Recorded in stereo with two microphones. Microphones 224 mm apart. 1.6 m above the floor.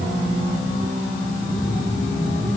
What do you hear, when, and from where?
Only background noise.